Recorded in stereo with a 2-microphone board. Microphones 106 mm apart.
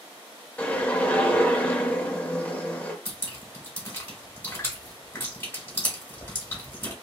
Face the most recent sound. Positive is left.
turn(degrees=20)  # may be behind; listen again after turning